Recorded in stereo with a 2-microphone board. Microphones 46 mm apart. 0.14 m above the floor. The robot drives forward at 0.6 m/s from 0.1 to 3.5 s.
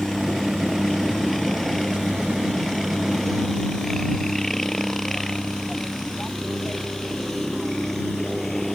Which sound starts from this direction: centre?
A helicopter, at 0.0 s.